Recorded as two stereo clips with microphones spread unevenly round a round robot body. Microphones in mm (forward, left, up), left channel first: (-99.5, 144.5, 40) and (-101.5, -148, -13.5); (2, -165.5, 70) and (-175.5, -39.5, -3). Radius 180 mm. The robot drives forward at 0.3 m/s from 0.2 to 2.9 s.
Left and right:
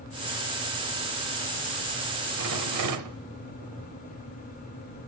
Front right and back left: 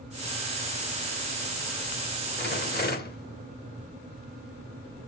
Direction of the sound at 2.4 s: 85° right.